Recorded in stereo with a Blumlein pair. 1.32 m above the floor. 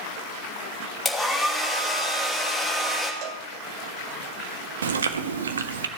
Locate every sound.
1.1 s a hair dryer: straight ahead, 2.5 m
3.2 s a cowbell: 40° right, 1.0 m
4.8 s chewing: 70° right, 1.0 m